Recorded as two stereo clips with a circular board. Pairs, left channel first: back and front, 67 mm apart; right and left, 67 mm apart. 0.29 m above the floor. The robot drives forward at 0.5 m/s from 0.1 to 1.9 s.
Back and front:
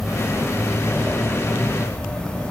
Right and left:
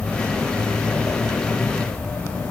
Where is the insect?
85° right, 2.5 m; by 2.5 s 135° right, 2.5 m.